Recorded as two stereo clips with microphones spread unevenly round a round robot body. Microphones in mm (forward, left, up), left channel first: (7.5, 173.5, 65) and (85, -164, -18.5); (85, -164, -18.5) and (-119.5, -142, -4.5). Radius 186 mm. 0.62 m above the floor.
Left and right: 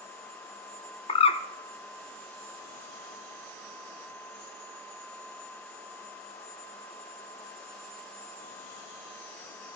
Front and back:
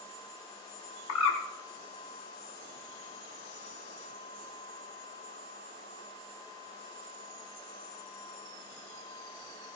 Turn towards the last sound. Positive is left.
turn(degrees=30)